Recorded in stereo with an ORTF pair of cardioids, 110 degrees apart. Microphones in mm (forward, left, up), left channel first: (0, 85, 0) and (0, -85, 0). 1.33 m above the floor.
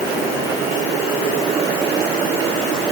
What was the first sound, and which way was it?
Only background noise.